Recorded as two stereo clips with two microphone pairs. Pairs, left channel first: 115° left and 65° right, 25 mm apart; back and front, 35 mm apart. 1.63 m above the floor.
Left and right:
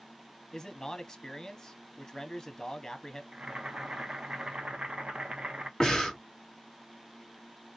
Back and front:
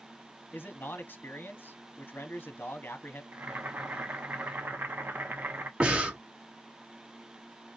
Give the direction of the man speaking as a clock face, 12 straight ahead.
6 o'clock.